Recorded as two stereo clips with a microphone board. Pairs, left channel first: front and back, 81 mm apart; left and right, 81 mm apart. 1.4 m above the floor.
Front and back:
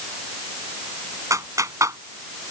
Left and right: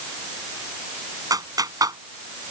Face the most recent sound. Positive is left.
turn(degrees=-130)